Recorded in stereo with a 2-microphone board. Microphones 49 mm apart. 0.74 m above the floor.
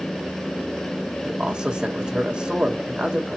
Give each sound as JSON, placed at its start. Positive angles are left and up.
{"t": 1.2, "sound": "a man speaking", "side_deg": -20, "distance_m": 1.2}